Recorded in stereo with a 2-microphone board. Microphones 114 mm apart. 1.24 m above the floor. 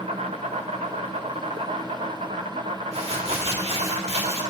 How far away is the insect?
About 1.7 m.